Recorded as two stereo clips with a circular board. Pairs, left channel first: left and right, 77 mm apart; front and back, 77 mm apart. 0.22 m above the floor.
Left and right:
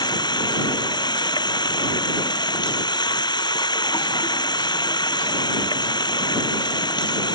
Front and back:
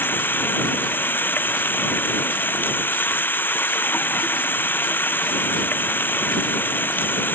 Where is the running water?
65° left.